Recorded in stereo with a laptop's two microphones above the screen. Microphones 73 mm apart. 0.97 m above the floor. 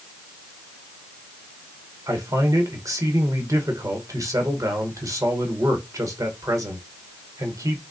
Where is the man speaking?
50° right (ahead or behind), 1.1 m.